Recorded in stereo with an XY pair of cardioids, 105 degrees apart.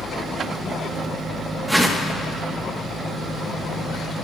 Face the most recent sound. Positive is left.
turn(degrees=-5)